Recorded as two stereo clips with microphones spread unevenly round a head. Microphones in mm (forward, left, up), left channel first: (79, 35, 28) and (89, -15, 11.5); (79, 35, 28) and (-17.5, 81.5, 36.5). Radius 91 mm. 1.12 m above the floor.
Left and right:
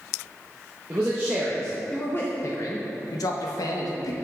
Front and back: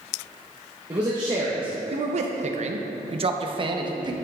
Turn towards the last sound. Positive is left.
turn(degrees=100)